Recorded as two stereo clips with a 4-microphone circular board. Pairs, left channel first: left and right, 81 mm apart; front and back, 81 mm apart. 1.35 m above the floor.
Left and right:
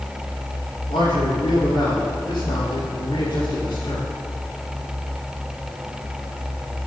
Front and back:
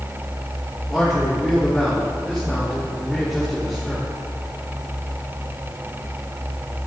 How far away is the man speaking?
About 5 m.